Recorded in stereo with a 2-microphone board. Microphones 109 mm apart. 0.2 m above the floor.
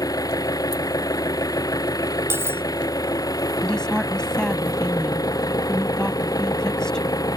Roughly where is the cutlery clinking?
Right.